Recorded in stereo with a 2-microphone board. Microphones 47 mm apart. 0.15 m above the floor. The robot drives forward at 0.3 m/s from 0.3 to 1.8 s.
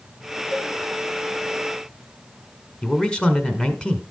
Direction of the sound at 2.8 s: 20° left (ahead or behind).